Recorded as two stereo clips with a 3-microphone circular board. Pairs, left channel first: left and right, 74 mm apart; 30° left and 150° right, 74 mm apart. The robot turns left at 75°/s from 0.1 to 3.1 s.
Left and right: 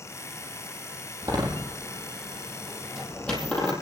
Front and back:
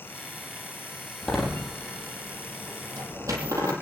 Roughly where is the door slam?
Ahead right.